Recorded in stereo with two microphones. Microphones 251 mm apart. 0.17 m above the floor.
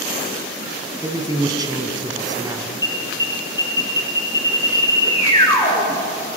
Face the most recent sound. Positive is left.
turn(degrees=15)  # may be behind; listen again after turning